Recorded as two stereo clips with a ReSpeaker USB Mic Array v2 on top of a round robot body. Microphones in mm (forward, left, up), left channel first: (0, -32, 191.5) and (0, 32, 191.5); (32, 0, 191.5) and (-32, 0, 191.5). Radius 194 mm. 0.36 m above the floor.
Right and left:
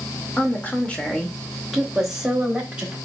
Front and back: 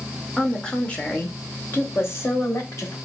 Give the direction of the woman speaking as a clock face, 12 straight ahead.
3 o'clock.